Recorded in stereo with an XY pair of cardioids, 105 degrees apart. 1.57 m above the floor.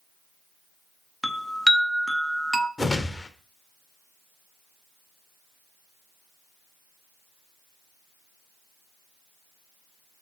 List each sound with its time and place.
1.2 s a chime: straight ahead, 0.7 m
2.8 s a whoosh: 20° left, 1.0 m